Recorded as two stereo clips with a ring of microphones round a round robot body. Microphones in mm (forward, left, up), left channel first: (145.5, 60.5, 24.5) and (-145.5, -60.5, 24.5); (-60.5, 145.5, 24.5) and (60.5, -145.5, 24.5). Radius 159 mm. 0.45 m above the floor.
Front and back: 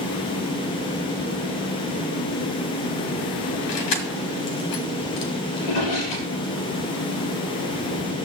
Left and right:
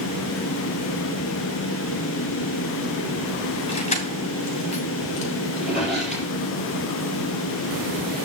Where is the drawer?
20° left, 6 m.